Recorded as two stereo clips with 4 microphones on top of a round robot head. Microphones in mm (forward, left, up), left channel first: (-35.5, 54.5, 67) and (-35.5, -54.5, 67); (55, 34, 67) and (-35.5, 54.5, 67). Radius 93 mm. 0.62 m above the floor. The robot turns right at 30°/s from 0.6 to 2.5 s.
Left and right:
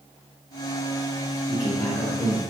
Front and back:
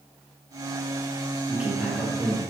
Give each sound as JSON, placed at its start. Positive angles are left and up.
{"t": 1.5, "sound": "a man speaking", "azimuth_deg": 95, "distance_m": 0.9}